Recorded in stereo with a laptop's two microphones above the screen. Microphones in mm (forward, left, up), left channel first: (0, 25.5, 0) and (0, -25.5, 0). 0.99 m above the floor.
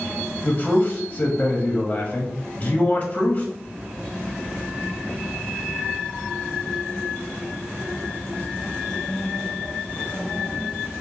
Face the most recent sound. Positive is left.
turn(degrees=30)  # may be behind; listen again after turning